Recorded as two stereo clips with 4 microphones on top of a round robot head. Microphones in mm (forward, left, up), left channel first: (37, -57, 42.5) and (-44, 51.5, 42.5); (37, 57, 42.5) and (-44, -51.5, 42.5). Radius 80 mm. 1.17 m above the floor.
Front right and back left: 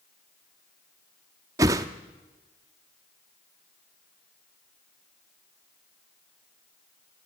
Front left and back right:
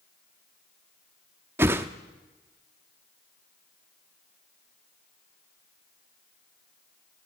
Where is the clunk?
I don't hear a clunk.